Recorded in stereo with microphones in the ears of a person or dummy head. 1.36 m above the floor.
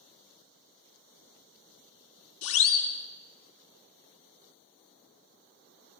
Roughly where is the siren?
Left.